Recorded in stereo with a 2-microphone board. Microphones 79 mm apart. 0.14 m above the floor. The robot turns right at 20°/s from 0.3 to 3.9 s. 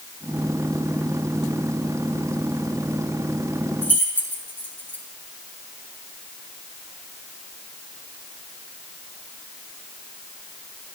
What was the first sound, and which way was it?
Keys jangling, 30° left (ahead or behind).